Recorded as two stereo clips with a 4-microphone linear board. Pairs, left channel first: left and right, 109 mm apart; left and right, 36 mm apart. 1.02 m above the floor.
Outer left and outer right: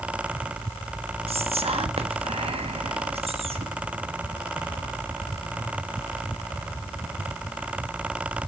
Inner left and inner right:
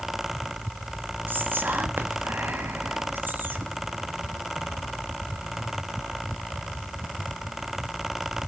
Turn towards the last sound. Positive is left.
turn(degrees=-65)  # may be behind; listen again after turning